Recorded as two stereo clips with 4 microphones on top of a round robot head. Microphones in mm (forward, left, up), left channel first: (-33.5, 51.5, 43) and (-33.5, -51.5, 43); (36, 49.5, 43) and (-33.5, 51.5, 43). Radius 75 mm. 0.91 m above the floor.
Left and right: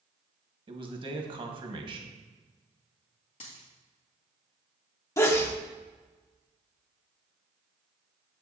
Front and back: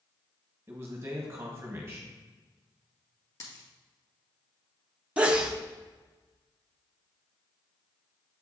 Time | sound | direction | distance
0.7 | a man speaking | 125° right | 1.3 m
3.4 | a dropped coin | 40° left | 1.8 m
5.2 | a sneeze | 120° left | 0.7 m